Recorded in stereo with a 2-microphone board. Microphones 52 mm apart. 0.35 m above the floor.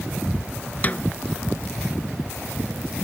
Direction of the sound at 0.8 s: 30° left (ahead or behind).